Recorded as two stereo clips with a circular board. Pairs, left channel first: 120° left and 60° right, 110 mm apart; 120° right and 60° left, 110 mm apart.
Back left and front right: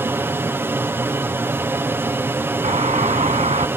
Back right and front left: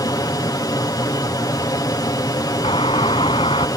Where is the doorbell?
80° right.